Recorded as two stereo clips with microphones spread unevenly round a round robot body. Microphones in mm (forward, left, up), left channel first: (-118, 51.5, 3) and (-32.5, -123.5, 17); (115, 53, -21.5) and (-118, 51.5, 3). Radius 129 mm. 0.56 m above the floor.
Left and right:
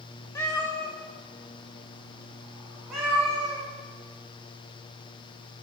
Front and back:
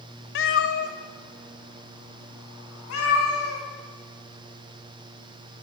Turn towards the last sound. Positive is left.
turn(degrees=25)